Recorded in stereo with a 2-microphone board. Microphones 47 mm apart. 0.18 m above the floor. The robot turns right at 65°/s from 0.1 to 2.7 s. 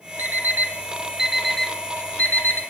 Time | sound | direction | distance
0.2 | an alarm clock | 50° right (ahead or behind) | 1.2 m